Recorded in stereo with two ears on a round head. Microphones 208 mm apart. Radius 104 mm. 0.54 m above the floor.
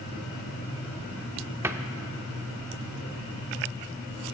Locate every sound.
1.6 s a cupboard door: 10° right (ahead or behind), 0.6 m